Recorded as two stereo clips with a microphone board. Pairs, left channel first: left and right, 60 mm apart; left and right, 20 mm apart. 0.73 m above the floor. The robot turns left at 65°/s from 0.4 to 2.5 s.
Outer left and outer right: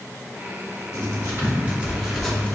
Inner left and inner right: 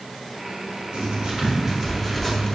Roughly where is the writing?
Right.